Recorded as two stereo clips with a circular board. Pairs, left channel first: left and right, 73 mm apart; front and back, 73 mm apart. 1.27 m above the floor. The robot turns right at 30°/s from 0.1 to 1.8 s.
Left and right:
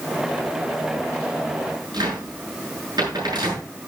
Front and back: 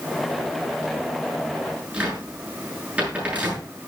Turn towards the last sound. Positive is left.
turn(degrees=-110)